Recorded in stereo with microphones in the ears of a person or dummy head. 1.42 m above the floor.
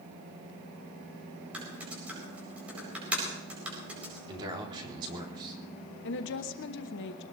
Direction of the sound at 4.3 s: 35° right (ahead or behind).